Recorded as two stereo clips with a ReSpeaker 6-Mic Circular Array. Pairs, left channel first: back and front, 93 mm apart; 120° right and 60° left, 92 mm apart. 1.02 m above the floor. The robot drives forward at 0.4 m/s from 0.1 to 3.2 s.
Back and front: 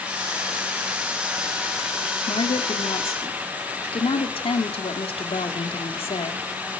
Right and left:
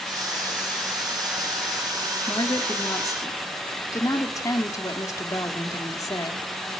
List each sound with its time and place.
2.3 s a woman speaking: 170° right, 1.7 m; by 6.5 s 175° right, 2 m